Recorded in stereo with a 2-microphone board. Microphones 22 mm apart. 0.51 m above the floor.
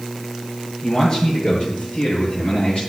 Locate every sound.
0.8 s a man speaking: 45° left (ahead or behind), 6.5 m; by 2.8 s 55° left (ahead or behind), 7 m